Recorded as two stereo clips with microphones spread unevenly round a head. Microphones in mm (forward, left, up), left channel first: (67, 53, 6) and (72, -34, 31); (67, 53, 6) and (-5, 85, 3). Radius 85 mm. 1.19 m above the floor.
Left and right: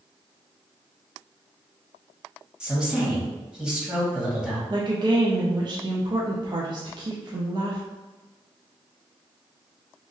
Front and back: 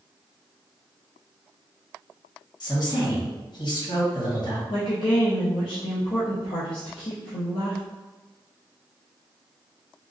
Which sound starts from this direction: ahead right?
A woman speaking, at 4.7 s.